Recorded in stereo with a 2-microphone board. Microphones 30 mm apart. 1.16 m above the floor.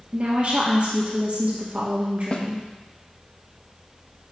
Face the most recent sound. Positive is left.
turn(degrees=35)  # may be behind; listen again after turning